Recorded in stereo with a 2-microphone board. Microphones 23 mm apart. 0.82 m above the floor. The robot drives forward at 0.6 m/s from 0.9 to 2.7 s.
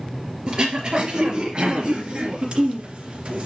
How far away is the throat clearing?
About 3.5 m.